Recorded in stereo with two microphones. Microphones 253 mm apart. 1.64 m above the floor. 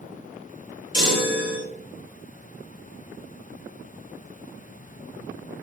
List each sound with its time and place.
0.9 s a chime: 70° right (ahead or behind), 3.5 m